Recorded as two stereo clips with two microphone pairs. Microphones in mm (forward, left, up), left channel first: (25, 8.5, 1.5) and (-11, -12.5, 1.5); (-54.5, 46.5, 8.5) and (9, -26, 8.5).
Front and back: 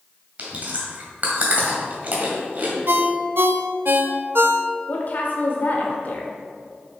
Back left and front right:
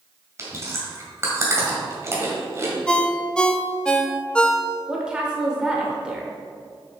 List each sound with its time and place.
0.4 s chewing: 105° right, 1.8 m
2.9 s a ringtone: 155° right, 0.5 m
4.9 s a woman speaking: 30° left, 1.0 m